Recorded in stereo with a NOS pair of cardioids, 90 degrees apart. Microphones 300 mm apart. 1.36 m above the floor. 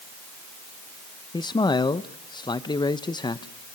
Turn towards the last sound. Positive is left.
turn(degrees=15)